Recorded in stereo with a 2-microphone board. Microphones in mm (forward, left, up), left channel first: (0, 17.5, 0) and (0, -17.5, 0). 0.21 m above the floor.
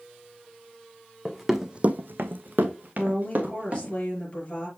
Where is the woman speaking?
35° left (ahead or behind), 5 m.